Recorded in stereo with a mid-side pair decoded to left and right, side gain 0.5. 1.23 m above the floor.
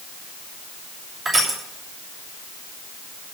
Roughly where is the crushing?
Ahead.